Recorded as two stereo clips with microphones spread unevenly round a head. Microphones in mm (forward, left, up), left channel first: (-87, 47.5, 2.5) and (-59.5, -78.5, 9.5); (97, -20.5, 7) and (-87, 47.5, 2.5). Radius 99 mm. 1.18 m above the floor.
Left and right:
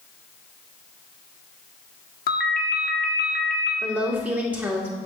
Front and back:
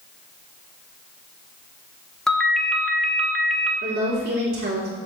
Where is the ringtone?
65° left, 1.2 m.